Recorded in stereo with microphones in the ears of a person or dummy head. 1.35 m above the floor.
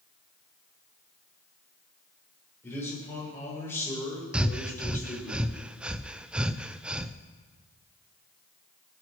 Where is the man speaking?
15° left (ahead or behind), 6 m.